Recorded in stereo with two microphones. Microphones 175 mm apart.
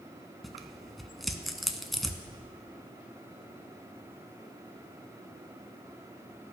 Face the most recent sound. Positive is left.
turn(degrees=0)  # may be behind; listen again after turning